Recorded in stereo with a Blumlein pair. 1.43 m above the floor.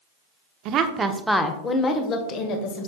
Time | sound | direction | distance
0.7 | a woman speaking | 40° right | 0.8 m